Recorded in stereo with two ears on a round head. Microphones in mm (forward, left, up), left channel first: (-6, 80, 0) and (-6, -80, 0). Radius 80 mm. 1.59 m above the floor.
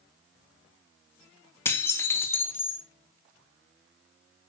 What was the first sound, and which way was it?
Dishes clattering, 15° left (ahead or behind).